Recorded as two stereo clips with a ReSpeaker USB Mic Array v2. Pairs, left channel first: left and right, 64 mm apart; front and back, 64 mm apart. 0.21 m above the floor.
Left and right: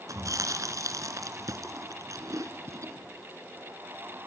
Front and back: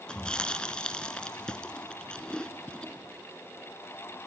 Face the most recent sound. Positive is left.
turn(degrees=-75)